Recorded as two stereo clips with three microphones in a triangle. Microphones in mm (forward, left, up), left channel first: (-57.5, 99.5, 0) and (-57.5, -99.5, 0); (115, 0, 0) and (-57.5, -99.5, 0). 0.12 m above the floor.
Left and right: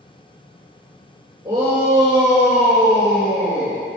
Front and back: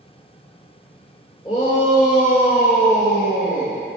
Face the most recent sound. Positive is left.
turn(degrees=20)